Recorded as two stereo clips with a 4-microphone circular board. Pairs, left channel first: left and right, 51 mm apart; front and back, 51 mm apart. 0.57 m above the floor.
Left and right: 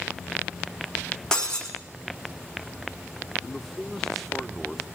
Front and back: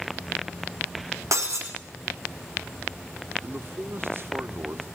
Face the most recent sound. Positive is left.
turn(degrees=175)